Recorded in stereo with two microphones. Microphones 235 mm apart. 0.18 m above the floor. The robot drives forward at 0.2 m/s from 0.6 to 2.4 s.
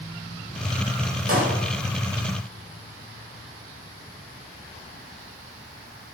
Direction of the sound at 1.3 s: 75° right (ahead or behind).